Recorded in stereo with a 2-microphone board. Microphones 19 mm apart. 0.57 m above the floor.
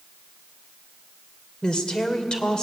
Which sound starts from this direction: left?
A woman speaking, at 1.6 s.